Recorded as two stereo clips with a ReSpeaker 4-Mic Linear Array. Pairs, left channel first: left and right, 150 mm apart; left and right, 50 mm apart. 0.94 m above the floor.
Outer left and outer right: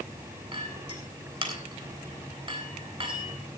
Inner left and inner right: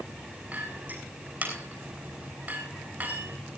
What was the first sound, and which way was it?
A clink, 35° right (ahead or behind).